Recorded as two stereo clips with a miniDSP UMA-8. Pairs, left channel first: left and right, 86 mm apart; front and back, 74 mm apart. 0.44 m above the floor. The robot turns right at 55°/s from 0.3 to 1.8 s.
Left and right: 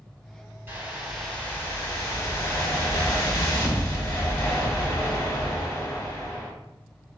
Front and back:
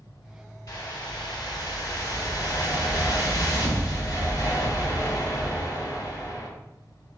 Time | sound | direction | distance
0.7 | a whoosh | 30° right | 1.5 m